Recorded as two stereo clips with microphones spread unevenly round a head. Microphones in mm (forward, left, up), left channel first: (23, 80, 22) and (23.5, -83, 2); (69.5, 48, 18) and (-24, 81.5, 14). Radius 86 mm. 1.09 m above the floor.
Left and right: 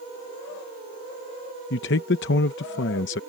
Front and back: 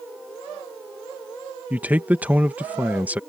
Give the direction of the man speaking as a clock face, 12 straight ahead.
9 o'clock.